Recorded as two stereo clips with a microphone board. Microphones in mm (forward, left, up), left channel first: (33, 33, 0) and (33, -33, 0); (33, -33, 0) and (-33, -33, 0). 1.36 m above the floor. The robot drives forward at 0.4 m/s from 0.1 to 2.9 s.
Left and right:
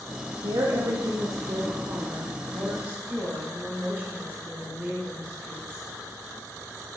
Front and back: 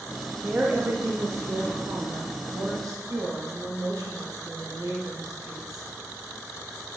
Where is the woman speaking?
105° right, 0.6 m; by 5.9 s 155° right, 1.3 m.